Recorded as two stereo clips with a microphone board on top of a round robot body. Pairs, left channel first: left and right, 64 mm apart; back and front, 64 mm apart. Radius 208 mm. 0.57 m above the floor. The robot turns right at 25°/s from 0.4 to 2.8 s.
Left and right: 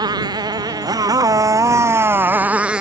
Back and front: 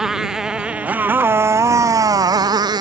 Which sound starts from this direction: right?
A motorcycle, at 0.0 s.